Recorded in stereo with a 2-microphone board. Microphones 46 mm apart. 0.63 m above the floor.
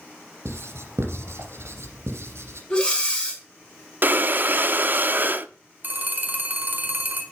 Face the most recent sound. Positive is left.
turn(degrees=-45)  # may be behind; listen again after turning